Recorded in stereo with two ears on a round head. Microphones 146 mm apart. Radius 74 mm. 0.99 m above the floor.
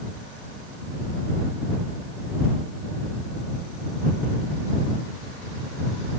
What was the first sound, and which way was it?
Only background noise.